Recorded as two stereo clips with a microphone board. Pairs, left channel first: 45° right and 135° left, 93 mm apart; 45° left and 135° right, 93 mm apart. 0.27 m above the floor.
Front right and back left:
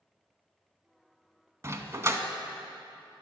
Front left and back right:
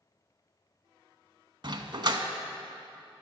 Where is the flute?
I don't hear a flute.